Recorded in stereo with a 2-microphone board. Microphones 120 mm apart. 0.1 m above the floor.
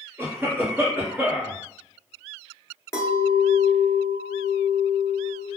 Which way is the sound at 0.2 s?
20° right (ahead or behind).